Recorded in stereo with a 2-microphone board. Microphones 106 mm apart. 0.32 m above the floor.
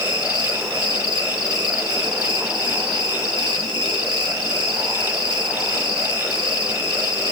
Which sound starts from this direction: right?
An insect, at 0.0 s.